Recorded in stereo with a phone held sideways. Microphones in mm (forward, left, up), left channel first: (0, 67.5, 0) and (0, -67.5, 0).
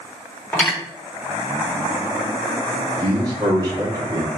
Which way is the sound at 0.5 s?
10° left (ahead or behind).